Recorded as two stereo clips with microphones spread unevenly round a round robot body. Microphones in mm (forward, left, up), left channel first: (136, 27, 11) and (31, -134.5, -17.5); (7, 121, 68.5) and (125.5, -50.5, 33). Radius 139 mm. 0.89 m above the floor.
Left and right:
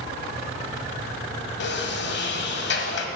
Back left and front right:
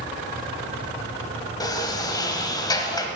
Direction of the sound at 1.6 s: 60° left.